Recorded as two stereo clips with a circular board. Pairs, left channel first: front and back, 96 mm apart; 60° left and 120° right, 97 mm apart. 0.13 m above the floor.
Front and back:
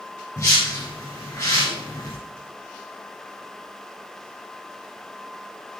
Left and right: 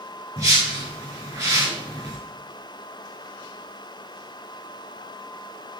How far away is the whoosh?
About 7 m.